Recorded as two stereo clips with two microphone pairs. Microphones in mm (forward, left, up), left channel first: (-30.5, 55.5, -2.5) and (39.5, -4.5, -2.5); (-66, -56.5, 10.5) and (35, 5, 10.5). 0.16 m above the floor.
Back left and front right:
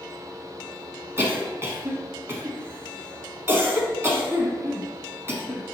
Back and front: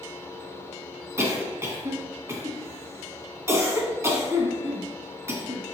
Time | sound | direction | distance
1.2 | a cough | 10° right | 1.3 m